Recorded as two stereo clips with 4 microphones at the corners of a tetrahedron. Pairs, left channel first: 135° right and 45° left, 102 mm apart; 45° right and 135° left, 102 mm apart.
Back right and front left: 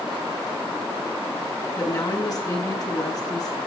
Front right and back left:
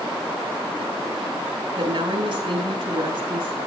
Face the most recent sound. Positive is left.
turn(degrees=175)